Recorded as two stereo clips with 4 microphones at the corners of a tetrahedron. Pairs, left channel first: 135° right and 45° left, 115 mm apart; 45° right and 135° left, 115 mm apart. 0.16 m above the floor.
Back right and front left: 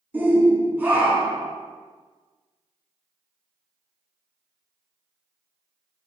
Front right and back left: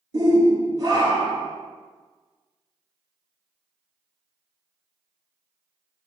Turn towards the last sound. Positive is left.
turn(degrees=110)